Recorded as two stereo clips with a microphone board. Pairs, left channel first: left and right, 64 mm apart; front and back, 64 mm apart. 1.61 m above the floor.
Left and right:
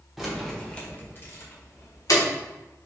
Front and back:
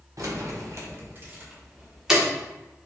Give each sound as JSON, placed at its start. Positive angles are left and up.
{"t": 0.2, "sound": "keys jangling", "azimuth_deg": -175, "distance_m": 0.9}